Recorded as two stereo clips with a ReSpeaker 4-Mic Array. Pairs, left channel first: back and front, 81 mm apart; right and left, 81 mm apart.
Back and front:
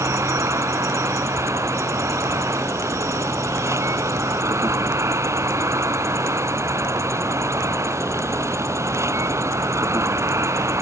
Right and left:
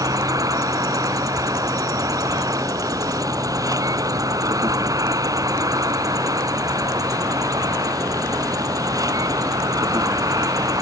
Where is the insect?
50° left.